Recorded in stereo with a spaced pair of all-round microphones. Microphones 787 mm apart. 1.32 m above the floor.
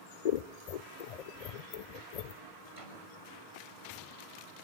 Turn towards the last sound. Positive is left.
turn(degrees=-75)  # may be behind; listen again after turning